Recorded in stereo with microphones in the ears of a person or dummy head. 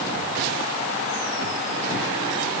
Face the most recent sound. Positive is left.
No sound to turn to.